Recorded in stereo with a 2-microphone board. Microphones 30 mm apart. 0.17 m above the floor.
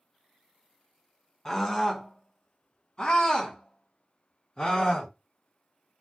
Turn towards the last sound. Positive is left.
turn(degrees=30)  # may be behind; listen again after turning